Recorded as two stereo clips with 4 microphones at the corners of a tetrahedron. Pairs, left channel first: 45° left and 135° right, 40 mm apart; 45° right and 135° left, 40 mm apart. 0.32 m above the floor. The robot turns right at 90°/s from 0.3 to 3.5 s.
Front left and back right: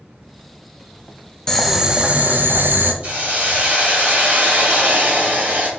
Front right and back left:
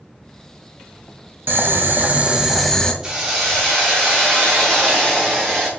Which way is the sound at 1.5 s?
120° left.